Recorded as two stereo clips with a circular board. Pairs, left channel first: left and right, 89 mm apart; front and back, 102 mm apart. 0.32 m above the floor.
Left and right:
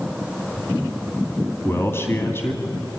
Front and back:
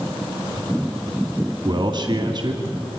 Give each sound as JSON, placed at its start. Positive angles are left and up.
{"t": 1.6, "sound": "a man speaking", "azimuth_deg": 145, "distance_m": 2.0}